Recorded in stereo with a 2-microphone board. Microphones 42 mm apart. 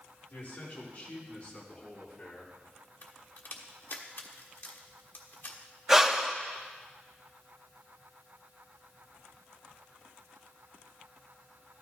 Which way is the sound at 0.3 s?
40° left (ahead or behind).